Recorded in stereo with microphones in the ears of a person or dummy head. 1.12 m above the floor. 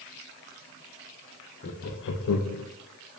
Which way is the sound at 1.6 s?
55° left (ahead or behind).